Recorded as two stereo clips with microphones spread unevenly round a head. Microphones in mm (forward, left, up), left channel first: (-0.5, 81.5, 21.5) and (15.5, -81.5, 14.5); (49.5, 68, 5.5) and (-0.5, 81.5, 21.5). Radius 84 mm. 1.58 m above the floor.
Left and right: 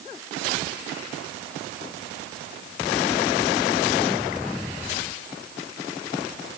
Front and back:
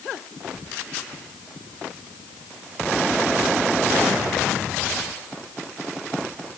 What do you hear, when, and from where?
Only background noise.